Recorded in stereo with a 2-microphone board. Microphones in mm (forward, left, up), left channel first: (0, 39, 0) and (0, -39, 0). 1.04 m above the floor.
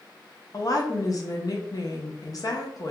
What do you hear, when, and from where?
0.5 s a woman speaking: 50° left (ahead or behind), 0.5 m